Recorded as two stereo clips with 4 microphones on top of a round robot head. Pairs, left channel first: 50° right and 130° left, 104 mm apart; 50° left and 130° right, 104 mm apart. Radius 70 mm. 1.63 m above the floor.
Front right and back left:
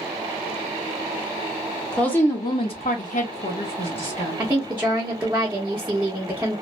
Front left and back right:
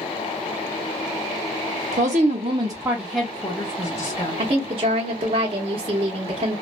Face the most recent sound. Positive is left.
turn(degrees=-155)